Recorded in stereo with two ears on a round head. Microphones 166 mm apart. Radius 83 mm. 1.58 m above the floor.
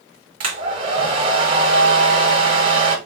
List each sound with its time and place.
0.4 s a hair dryer: 30° right (ahead or behind), 1.5 m